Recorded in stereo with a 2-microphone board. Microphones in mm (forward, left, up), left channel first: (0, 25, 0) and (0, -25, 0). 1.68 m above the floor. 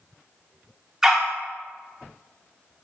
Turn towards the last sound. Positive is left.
turn(degrees=-10)  # may be behind; listen again after turning